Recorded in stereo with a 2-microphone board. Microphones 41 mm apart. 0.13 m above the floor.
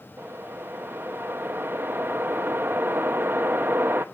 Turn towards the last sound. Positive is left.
turn(degrees=-65)  # may be behind; listen again after turning